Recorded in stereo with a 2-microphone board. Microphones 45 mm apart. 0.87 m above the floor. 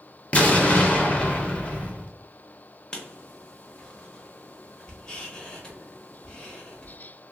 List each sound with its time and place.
0.3 s an explosion: 25° left (ahead or behind), 0.6 m
2.9 s writing: 15° left (ahead or behind), 0.7 m